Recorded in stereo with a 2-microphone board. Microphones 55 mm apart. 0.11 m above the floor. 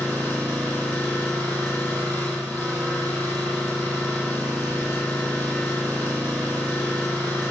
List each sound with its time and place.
0.0 s an engine running: 25° left (ahead or behind), 1.0 m